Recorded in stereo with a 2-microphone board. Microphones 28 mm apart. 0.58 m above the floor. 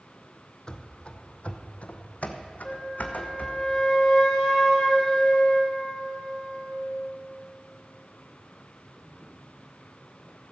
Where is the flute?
30° left (ahead or behind), 2 m.